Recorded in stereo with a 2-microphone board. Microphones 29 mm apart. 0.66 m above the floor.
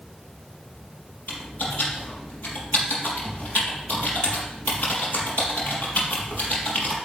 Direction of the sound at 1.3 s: 65° left (ahead or behind).